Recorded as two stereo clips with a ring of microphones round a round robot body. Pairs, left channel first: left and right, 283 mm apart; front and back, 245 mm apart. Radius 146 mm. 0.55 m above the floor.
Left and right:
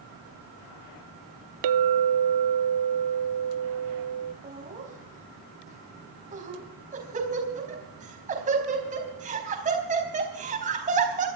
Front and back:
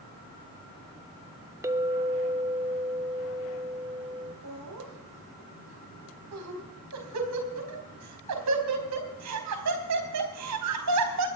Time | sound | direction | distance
1.6 | a clink | 100° right | 0.5 m
4.4 | laughter | 155° right | 4 m